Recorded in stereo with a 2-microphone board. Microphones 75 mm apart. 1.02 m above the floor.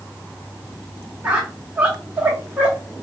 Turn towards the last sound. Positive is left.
turn(degrees=-20)  # may be behind; listen again after turning